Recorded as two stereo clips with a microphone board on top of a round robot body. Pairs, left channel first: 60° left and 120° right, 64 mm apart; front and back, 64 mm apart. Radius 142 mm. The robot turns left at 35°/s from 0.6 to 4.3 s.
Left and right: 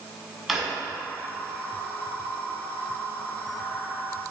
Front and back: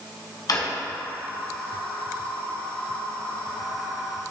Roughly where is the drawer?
Ahead right.